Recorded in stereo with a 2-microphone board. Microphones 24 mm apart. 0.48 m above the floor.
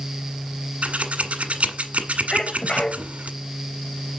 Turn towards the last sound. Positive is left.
turn(degrees=45)  # may be behind; listen again after turning